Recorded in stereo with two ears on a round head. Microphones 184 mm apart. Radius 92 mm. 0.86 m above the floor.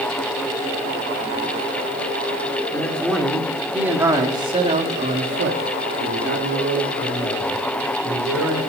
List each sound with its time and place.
2.7 s a man speaking: 10° left (ahead or behind), 3 m; by 8.6 s 70° right (ahead or behind), 4 m